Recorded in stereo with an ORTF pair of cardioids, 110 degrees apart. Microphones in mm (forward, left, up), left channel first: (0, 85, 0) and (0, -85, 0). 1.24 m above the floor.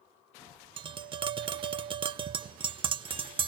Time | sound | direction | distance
0.8 | tapping | 30° right | 0.8 m